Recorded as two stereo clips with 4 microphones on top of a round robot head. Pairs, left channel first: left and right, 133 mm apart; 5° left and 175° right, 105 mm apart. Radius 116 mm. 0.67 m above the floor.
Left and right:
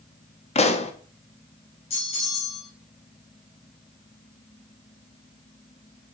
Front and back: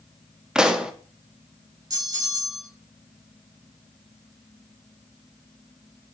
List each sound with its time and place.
0.6 s a pop: 105° left, 1.4 m
1.9 s a bell: 135° left, 4 m